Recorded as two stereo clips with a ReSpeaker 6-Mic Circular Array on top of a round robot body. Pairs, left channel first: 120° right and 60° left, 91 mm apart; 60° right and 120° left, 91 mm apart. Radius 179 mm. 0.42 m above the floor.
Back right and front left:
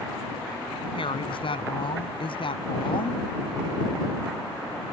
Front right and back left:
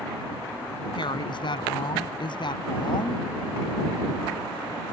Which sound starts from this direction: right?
A woman speaking, at 0.9 s.